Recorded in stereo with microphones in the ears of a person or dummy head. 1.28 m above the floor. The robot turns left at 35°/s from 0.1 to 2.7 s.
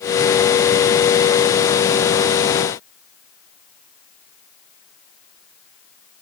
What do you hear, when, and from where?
Only background noise.